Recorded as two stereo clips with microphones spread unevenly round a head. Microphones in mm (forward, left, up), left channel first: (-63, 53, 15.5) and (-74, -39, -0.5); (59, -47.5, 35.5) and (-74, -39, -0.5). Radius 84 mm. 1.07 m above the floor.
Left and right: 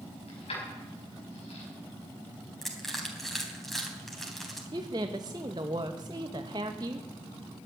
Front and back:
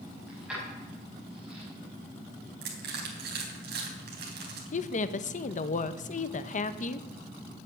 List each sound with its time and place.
0.3 s keys jangling: 90° left, 5 m
2.6 s crushing: 170° left, 3.5 m
4.7 s a woman speaking: 40° right, 0.9 m